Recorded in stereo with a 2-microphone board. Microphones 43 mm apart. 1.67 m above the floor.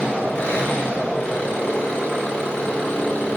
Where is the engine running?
25° left (ahead or behind), 4.5 m.